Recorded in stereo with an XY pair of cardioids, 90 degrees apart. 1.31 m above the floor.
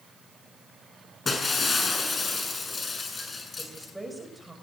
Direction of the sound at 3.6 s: 5° right.